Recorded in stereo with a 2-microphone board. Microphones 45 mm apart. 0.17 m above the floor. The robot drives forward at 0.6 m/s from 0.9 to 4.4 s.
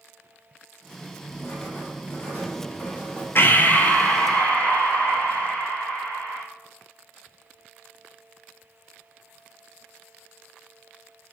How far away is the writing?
About 3 m.